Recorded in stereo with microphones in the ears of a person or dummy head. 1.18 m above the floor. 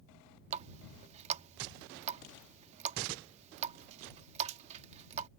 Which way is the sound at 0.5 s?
35° right (ahead or behind).